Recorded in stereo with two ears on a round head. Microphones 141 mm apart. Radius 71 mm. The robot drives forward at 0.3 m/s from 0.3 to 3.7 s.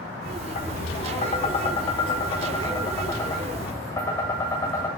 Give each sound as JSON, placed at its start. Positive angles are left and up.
{"t": 0.6, "sound": "tapping", "side_deg": 50, "distance_m": 0.6}